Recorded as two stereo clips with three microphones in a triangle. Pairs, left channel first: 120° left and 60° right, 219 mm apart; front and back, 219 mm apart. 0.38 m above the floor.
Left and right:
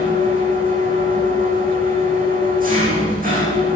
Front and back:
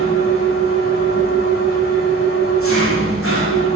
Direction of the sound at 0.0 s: 10° right.